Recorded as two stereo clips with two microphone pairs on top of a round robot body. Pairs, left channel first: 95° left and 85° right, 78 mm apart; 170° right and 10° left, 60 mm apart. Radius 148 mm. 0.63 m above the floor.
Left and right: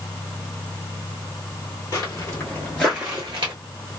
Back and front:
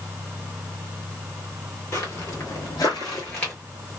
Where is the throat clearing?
I don't hear throat clearing.